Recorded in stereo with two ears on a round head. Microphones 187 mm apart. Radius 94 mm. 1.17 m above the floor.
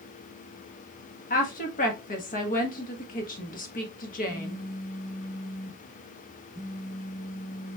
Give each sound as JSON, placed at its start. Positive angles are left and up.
{"t": 1.3, "sound": "a woman speaking", "side_deg": 40, "distance_m": 1.2}
{"t": 4.3, "sound": "a phone buzzing", "side_deg": 0, "distance_m": 1.0}